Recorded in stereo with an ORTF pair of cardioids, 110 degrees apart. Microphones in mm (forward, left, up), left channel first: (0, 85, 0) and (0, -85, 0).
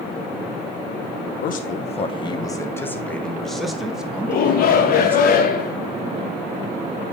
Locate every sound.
1.4 s a man speaking: 55° left, 0.9 m; by 5.3 s 10° right, 2.5 m
4.3 s a shout: 55° left, 0.9 m